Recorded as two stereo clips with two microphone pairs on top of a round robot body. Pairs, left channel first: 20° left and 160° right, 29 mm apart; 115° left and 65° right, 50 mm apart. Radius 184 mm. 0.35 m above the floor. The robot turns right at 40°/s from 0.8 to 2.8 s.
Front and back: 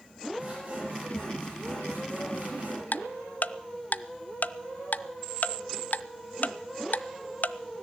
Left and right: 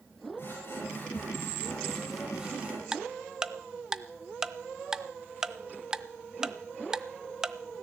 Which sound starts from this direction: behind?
Sawing, at 0.4 s.